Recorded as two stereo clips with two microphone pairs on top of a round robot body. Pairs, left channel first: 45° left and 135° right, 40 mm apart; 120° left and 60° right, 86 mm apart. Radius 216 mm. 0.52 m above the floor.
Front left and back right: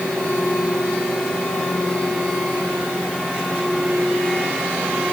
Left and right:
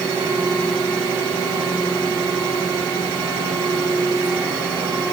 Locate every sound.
Only background noise.